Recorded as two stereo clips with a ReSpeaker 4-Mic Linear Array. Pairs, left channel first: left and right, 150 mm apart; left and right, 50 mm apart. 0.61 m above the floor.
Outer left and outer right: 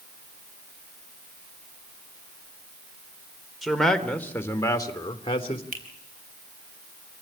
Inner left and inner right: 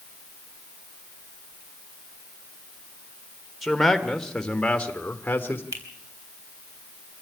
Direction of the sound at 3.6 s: Centre (ahead or behind).